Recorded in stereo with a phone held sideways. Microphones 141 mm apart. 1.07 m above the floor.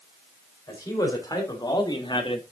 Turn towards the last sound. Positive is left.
turn(degrees=40)  # may be behind; listen again after turning